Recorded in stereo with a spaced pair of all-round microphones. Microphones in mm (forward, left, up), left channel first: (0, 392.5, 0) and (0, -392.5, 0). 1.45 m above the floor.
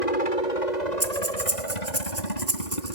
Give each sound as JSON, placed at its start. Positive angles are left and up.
{"t": 0.0, "sound": "a helicopter", "side_deg": 60}
{"t": 1.0, "sound": "breathing", "side_deg": -20}